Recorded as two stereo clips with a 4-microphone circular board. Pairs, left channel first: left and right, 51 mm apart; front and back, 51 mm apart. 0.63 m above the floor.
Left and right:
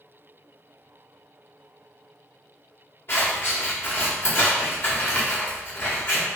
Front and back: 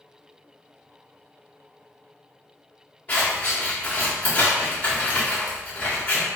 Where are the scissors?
55° left, 1.9 m.